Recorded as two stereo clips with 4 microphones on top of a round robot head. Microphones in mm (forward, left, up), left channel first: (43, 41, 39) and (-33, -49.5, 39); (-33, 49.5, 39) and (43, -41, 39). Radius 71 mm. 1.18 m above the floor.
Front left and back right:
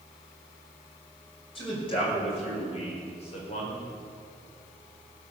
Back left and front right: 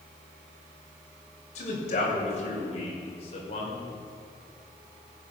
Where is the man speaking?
100° left, 6.5 m; by 3.8 s 85° left, 5.5 m.